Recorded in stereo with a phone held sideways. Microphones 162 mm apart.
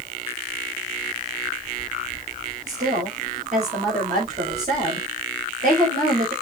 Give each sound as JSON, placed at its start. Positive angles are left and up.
{"t": 2.7, "sound": "a woman speaking", "side_deg": -55, "distance_m": 5.5}